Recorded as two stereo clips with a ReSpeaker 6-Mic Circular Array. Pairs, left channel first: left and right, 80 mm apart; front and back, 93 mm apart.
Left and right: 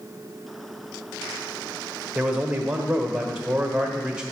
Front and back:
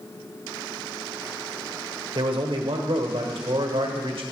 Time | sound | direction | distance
2.1 | a man speaking | 170° right | 1.3 m